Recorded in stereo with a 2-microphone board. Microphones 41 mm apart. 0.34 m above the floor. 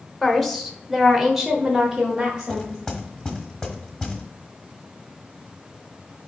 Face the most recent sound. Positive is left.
turn(degrees=20)  # may be behind; listen again after turning